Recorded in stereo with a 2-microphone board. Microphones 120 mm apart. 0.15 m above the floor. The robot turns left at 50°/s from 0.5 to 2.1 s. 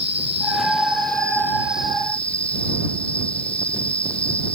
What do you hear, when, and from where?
0.0 s an insect: 110° right; by 4.6 s 170° left